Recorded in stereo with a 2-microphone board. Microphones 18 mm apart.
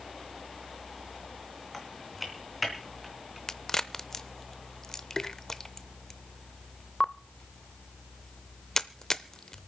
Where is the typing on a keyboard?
Centre (ahead or behind), 3.5 m.